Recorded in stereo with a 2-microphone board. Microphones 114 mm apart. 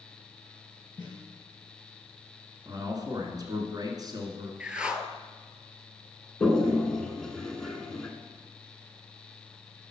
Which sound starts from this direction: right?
A man speaking, at 2.6 s.